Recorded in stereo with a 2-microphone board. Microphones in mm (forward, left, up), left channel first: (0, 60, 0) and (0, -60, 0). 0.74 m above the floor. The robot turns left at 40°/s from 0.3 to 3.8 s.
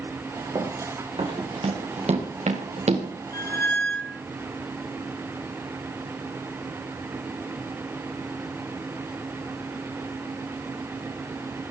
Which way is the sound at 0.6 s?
35° right (ahead or behind).